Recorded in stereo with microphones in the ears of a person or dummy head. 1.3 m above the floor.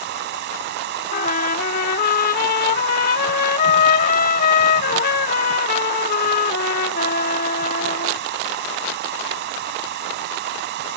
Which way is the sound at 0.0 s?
50° right (ahead or behind).